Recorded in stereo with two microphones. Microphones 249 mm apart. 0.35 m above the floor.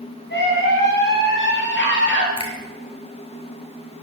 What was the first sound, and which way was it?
A scream, 45° left (ahead or behind).